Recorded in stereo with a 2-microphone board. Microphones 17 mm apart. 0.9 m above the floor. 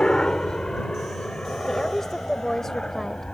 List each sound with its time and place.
0.0 s a helicopter: 65° left (ahead or behind); by 3.4 s 70° left (ahead or behind)
1.7 s a woman speaking: 25° left (ahead or behind)